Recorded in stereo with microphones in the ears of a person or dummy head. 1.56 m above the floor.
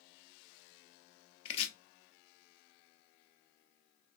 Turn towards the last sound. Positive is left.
turn(degrees=40)  # may be behind; listen again after turning